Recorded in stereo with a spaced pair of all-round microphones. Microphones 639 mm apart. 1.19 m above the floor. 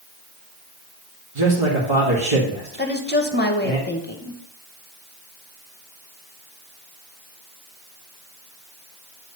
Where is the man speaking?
45° right (ahead or behind), 2.0 m.